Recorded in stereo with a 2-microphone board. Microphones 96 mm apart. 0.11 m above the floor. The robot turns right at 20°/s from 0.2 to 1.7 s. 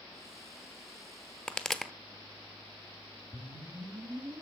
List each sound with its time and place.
1.5 s a pop: 10° left (ahead or behind), 0.8 m; by 1.9 s 5° left (ahead or behind), 0.8 m
3.3 s a whoosh: 60° right (ahead or behind), 1.9 m